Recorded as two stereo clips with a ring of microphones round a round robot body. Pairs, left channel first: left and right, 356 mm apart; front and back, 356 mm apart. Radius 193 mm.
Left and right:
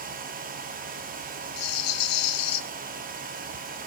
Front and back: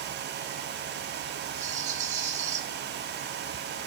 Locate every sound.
1.6 s a rattle: 110° left, 0.7 m